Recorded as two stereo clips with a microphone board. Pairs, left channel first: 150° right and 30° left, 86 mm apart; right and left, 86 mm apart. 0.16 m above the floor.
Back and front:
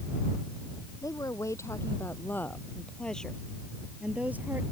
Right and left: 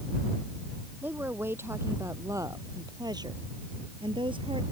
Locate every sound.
1.0 s a woman speaking: 160° left; by 4.6 s 95° left